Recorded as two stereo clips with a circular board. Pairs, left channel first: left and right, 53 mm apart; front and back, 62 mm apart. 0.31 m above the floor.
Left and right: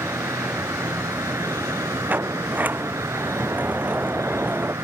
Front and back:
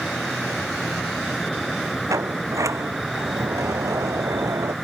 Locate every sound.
0.0 s an insect: 90° right
2.1 s a sliding door: 145° right